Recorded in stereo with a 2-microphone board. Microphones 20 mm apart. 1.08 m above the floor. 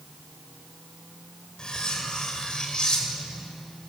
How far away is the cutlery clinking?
About 2.5 m.